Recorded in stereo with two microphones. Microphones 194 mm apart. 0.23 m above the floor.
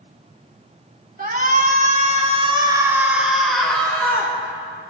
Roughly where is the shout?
Right.